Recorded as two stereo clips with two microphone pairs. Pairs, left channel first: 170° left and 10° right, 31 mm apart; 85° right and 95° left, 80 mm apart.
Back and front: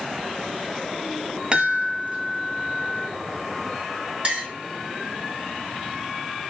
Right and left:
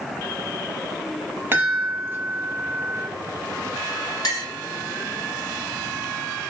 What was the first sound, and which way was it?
A chime, 40° left.